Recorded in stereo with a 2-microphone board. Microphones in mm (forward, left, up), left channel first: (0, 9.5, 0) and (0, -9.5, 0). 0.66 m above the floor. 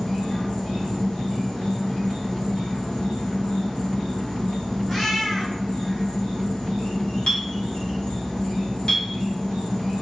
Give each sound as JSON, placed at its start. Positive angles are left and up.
{"t": 0.0, "sound": "an insect", "side_deg": 55, "distance_m": 1.4}
{"t": 4.9, "sound": "a cat meowing", "side_deg": 30, "distance_m": 1.8}
{"t": 7.3, "sound": "a clink", "side_deg": 60, "distance_m": 1.0}